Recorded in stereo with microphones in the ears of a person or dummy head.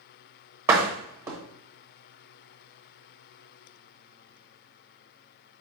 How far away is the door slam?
About 1.0 m.